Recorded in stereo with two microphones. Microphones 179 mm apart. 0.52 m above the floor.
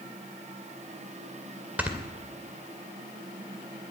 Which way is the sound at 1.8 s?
10° right (ahead or behind).